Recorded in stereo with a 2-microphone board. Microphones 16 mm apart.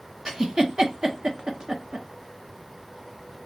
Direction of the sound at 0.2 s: 35° right (ahead or behind).